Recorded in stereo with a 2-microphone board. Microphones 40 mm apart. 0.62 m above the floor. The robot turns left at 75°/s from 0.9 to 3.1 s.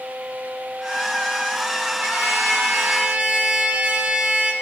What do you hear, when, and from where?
2.0 s a trumpet: 50° right, 1.2 m; by 4.5 s 130° right, 1.2 m